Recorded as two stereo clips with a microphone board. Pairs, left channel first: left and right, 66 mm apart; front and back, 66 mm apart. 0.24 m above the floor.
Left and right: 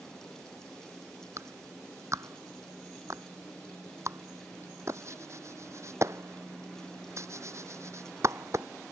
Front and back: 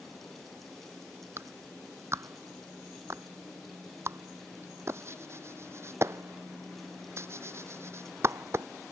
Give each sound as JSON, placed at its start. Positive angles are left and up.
{"t": 1.4, "sound": "a clap", "azimuth_deg": -130}